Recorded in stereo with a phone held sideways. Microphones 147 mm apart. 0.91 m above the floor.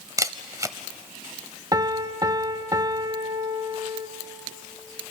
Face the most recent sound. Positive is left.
turn(degrees=-25)  # may be behind; listen again after turning